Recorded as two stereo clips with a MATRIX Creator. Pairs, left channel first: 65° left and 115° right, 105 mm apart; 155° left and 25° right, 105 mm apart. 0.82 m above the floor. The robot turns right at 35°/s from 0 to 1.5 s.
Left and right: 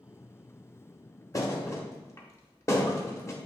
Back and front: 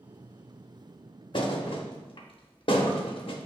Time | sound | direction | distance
1.3 | a thud | 120° left | 0.7 m